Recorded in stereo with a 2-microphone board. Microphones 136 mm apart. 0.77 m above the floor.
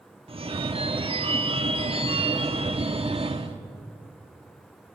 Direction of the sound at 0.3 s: 45° right (ahead or behind).